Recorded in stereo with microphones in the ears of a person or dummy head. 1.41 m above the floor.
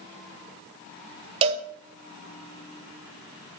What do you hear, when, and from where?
1.4 s a cowbell: 30° right (ahead or behind), 0.8 m